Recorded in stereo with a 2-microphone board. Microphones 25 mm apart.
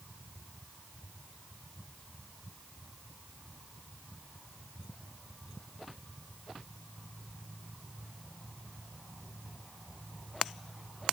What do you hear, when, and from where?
Only background noise.